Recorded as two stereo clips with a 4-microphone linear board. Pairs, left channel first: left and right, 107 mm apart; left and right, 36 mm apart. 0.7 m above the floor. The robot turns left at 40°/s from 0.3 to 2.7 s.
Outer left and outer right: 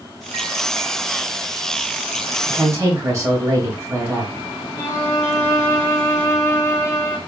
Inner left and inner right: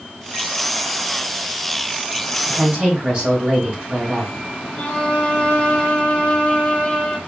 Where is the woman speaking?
40° right (ahead or behind), 2.5 m; by 4.3 s 30° right (ahead or behind), 2.5 m.